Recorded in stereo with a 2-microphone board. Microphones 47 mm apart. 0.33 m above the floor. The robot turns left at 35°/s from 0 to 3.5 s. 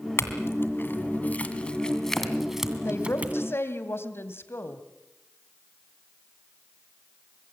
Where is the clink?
65° left (ahead or behind), 2 m; by 3.4 s 30° right (ahead or behind), 2 m.